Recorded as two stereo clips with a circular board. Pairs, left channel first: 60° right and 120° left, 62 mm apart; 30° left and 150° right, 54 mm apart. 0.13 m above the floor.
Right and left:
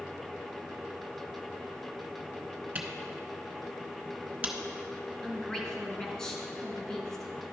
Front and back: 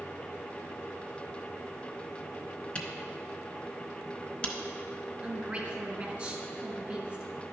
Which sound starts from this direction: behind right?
A woman speaking, at 5.2 s.